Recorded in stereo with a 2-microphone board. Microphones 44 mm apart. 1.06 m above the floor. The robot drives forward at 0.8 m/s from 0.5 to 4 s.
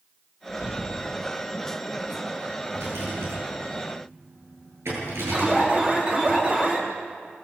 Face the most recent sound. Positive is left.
turn(degrees=-30)  # may be behind; listen again after turning